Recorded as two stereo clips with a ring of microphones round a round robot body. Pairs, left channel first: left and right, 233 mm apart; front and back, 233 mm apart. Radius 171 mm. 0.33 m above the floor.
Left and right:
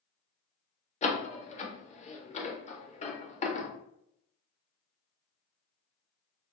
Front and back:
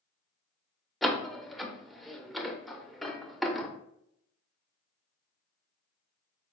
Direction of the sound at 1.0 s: 90° left.